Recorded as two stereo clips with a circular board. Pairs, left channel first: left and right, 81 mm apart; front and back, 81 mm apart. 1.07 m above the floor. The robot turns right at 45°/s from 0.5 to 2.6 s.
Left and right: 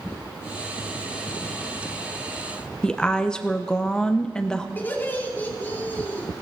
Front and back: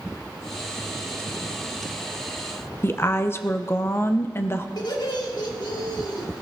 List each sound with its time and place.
2.8 s a woman speaking: 20° left, 0.8 m
4.8 s laughter: 25° left, 2.5 m